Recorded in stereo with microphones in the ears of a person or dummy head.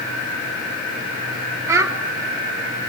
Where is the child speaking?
20° right (ahead or behind), 3 m.